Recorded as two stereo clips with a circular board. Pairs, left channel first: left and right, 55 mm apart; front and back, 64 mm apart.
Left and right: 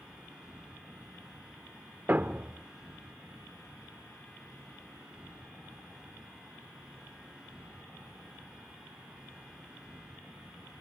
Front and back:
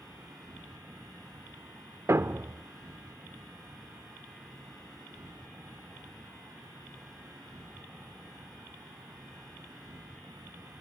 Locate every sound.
0.0 s an insect: 160° right, 9.5 m
2.1 s a thud: 140° right, 0.6 m